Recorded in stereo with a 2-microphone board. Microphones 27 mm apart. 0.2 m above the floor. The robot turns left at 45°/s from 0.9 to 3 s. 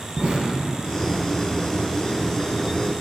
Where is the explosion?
40° right (ahead or behind), 1.4 m.